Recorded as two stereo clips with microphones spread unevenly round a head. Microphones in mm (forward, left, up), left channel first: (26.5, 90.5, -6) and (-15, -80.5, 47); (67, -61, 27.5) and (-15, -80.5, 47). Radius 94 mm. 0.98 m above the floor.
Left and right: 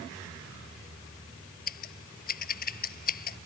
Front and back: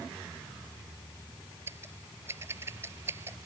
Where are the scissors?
120° left.